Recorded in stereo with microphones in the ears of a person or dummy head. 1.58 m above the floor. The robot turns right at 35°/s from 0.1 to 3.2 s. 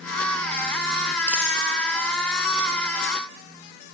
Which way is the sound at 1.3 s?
5° right (ahead or behind).